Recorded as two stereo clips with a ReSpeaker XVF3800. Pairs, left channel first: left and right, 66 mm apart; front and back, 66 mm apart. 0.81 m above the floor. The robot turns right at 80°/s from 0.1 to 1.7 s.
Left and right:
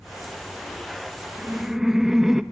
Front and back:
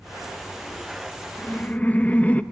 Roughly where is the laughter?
Ahead right.